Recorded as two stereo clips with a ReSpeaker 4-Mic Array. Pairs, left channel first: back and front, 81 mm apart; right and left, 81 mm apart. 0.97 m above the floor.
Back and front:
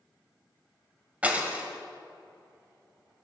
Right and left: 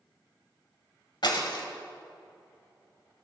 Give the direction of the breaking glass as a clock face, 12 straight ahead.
2 o'clock.